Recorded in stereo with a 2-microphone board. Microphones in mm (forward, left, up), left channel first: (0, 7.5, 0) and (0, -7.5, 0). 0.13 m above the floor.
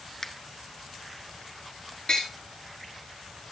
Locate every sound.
0.2 s a finger snap: 30° left (ahead or behind), 1.2 m
2.1 s tapping: 55° left (ahead or behind), 7 m